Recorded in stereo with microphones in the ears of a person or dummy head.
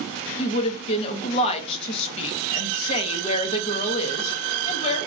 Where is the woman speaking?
35° left (ahead or behind), 0.8 m.